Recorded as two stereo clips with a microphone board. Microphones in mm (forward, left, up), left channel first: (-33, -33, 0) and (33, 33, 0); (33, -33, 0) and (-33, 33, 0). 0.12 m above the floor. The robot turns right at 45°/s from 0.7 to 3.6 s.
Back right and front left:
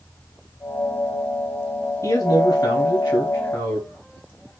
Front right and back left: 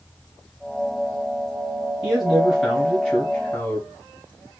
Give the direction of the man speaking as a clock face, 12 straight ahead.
5 o'clock.